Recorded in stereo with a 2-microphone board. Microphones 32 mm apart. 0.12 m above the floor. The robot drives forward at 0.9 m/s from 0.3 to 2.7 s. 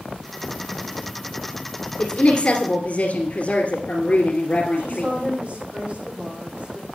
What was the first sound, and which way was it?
A woman speaking, 40° left (ahead or behind).